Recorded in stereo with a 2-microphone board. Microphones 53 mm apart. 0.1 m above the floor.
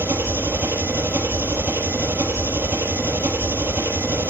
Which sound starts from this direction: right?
An engine running, at 0.0 s.